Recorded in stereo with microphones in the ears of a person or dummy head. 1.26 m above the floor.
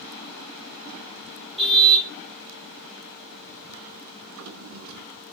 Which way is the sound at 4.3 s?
70° right (ahead or behind).